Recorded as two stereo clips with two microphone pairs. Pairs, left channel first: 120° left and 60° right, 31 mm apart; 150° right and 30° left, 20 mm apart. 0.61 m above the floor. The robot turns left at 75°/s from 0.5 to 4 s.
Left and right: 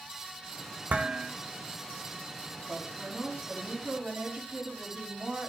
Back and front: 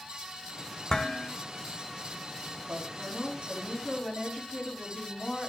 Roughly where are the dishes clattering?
Right.